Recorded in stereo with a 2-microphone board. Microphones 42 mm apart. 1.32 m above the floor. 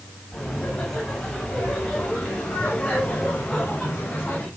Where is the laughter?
10° left (ahead or behind), 8 m; by 4.5 s 30° left (ahead or behind), 6.5 m.